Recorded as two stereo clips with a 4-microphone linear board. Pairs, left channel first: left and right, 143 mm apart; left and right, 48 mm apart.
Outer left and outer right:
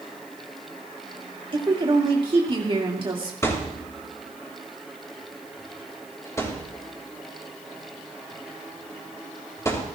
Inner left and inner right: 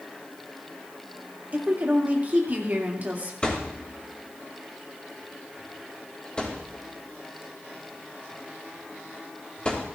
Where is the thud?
20° left (ahead or behind), 3 m.